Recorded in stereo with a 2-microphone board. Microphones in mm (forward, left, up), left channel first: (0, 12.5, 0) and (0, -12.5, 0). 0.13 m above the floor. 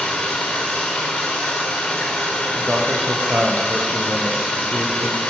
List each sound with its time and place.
0.0 s running water: 75° left (ahead or behind), 5.5 m
2.5 s a man speaking: 60° right (ahead or behind), 3.5 m